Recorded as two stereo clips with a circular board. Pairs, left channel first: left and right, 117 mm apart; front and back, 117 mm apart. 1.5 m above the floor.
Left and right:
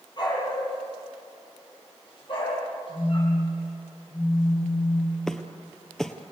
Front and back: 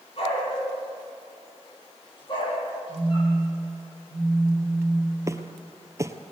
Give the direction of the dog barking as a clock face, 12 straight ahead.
11 o'clock.